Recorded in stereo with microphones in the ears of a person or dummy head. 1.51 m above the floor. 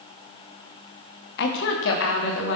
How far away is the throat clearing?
No throat clearing in this recording.